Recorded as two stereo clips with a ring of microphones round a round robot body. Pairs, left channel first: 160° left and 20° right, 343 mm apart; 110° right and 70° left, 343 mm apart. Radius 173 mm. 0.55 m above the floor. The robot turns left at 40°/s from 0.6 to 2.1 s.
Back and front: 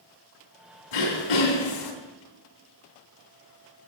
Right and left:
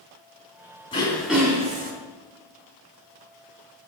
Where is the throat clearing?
170° left, 3 m; by 1.9 s 130° left, 3 m.